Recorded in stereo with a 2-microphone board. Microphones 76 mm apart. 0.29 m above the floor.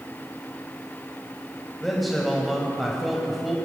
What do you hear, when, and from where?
1.8 s a man speaking: centre (ahead or behind), 1.7 m